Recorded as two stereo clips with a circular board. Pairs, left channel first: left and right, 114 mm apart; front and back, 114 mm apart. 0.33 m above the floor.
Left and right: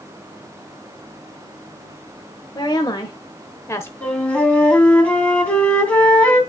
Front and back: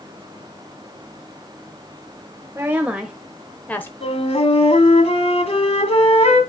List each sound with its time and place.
2.5 s a woman speaking: 120° left, 1.1 m; by 3.9 s 45° left, 0.9 m
4.0 s a flute: 15° left, 2 m